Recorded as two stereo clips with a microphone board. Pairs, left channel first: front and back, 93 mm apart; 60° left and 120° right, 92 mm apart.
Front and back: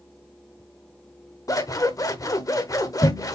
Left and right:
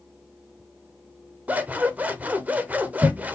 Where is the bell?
I don't hear a bell.